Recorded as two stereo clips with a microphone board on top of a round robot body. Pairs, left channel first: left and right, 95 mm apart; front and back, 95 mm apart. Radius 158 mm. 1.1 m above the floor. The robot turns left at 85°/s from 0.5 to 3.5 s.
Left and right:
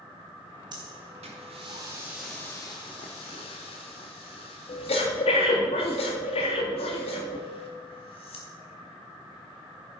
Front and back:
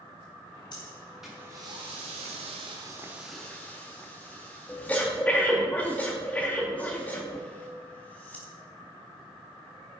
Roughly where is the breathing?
Ahead right.